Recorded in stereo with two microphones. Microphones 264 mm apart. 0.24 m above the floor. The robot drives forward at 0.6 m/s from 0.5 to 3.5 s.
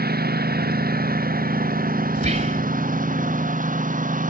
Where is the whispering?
30° right (ahead or behind).